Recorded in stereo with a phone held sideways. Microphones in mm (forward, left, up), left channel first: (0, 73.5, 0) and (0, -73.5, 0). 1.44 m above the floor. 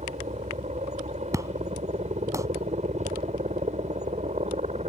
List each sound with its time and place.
0.0 s a helicopter: 50° right (ahead or behind)
1.3 s an explosion: 20° right (ahead or behind)